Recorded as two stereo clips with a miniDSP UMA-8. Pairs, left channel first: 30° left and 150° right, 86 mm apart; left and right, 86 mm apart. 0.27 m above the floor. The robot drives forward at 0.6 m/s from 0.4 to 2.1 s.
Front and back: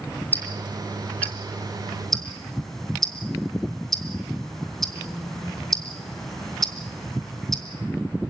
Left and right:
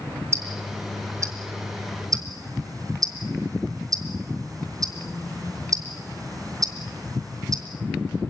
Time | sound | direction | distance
0.3 | ticking | 40° right | 3 m